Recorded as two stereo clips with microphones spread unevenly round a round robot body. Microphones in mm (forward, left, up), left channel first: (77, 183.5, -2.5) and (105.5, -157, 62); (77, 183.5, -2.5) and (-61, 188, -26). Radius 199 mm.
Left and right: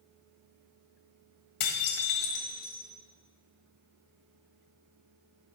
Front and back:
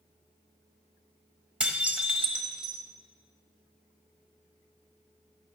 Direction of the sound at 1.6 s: 100° left.